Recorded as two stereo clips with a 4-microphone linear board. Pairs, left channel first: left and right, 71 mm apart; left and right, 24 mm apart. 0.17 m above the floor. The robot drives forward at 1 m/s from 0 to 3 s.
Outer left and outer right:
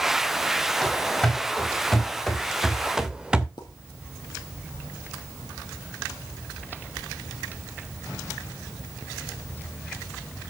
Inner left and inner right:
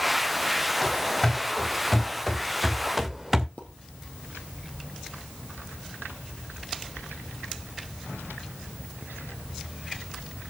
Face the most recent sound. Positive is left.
turn(degrees=80)